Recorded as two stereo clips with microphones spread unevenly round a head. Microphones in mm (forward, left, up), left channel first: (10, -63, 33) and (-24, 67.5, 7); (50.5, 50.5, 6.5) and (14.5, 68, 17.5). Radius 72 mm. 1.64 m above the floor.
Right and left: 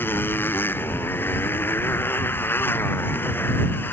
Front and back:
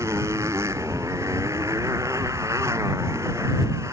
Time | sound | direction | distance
0.0 | a motorcycle | 150° right | ?